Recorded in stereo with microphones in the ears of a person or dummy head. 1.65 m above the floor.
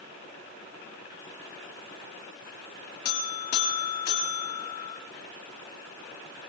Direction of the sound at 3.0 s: 65° left (ahead or behind).